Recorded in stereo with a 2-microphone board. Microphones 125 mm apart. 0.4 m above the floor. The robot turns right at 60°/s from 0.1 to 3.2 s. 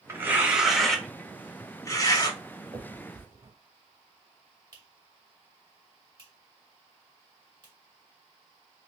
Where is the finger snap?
45° right (ahead or behind), 1.5 m; by 7.7 s 35° right (ahead or behind), 1.5 m.